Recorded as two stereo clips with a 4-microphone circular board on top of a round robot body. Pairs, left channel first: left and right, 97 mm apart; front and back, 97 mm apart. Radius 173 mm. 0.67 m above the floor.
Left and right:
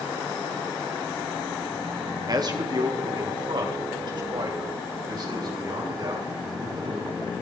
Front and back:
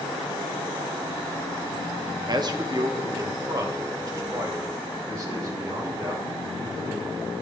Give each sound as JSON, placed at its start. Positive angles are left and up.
{"t": 2.3, "sound": "a man speaking", "azimuth_deg": -135, "distance_m": 1.5}